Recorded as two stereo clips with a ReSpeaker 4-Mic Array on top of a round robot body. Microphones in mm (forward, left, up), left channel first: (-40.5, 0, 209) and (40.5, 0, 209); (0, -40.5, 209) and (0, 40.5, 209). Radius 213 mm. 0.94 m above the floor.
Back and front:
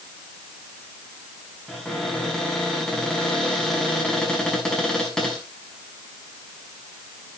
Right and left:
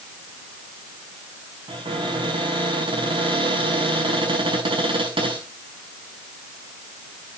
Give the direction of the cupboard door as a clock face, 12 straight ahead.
9 o'clock.